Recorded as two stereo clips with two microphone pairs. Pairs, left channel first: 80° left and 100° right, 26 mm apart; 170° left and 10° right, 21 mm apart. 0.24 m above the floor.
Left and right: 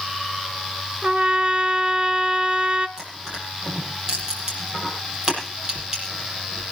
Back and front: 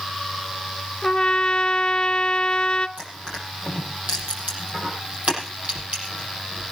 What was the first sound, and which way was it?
A trumpet, 140° right.